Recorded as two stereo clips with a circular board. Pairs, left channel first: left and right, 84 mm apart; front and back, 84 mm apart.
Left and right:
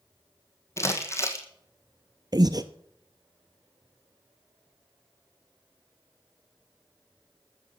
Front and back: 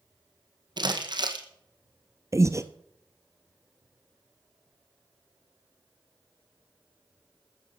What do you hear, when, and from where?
0.8 s crumpling: 150° left, 1.6 m
2.3 s breathing: 130° right, 0.8 m